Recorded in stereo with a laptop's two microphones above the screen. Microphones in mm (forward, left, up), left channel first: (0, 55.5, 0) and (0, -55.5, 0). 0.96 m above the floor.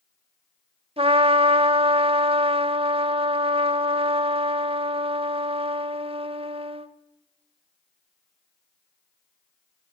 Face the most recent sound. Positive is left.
turn(degrees=-60)  # may be behind; listen again after turning